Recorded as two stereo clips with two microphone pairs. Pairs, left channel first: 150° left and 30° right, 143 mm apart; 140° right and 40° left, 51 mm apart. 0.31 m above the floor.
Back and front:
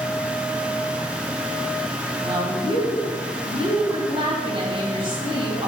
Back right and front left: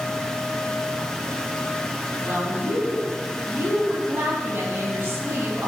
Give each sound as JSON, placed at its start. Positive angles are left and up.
{"t": 2.2, "sound": "a woman speaking", "azimuth_deg": 10, "distance_m": 2.0}